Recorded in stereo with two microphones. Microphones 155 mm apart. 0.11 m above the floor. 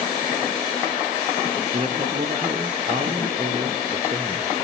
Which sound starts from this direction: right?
A man speaking, at 1.7 s.